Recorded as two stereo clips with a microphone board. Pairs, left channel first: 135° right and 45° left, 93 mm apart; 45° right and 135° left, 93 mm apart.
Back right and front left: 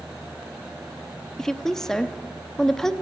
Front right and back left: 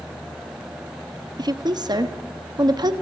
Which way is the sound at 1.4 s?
145° left.